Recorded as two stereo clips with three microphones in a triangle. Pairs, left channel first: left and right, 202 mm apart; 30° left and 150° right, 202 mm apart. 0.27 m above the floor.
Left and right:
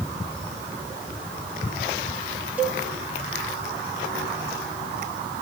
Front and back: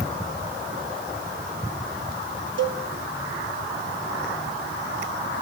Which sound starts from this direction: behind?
A cowbell, at 2.6 s.